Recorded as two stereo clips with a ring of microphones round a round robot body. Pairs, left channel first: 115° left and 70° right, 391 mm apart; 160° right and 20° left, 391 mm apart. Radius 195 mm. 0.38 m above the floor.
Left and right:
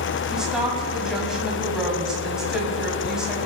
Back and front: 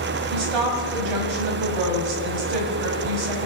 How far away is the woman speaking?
About 1.9 m.